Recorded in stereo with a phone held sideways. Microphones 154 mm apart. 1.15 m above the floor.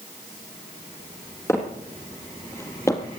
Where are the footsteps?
15° left (ahead or behind), 2.5 m; by 3.2 s 20° left (ahead or behind), 1.5 m.